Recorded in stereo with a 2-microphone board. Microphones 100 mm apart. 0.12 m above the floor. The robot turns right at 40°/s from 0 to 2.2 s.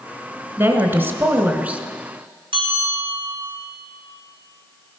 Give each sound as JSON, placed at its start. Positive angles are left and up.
{"t": 0.6, "sound": "a woman speaking", "side_deg": -25, "distance_m": 1.1}
{"t": 2.5, "sound": "a bell", "side_deg": -65, "distance_m": 4.0}